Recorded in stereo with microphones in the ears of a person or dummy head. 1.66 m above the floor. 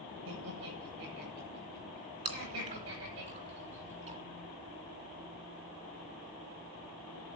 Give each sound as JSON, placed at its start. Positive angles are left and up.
{"t": 0.2, "sound": "laughter", "side_deg": -75, "distance_m": 9.5}
{"t": 2.2, "sound": "chewing", "side_deg": -40, "distance_m": 3.0}